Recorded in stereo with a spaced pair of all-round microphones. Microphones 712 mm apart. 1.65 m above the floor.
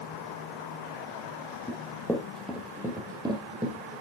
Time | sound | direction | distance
1.7 | running footsteps | 5° left (ahead or behind) | 1.8 m